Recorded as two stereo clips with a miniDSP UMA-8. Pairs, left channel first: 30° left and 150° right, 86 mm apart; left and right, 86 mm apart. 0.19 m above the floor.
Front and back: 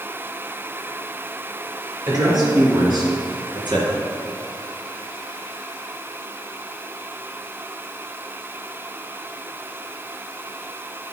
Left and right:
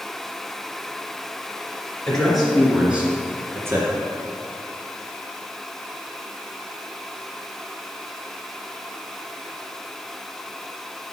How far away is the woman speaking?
About 3 m.